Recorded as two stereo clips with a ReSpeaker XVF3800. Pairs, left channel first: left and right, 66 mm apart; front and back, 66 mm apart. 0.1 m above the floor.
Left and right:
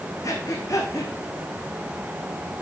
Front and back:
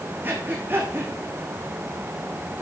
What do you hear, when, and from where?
0.2 s breathing: 125° left, 2 m